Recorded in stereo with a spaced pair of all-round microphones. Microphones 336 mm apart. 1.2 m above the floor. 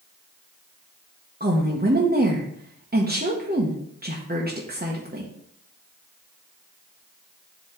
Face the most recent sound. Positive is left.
turn(degrees=-30)  # may be behind; listen again after turning